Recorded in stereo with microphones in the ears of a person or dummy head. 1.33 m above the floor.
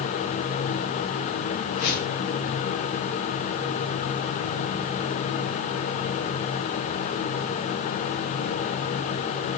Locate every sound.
1.7 s a whoosh: 50° left (ahead or behind), 2 m